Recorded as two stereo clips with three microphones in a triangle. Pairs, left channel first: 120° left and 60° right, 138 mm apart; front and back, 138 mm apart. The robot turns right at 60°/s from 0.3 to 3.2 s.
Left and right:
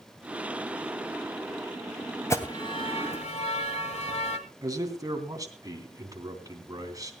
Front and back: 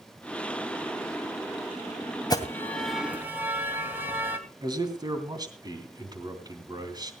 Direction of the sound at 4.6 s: 120° right.